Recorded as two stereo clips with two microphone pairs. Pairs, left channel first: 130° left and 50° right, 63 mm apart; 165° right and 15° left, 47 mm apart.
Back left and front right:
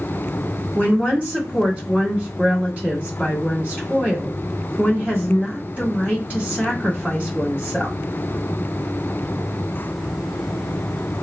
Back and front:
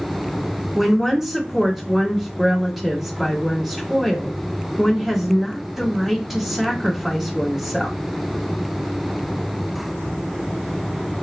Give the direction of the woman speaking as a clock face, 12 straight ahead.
2 o'clock.